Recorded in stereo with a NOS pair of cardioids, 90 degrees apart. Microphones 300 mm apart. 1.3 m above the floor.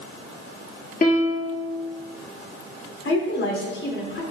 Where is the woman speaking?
40° left, 3.5 m.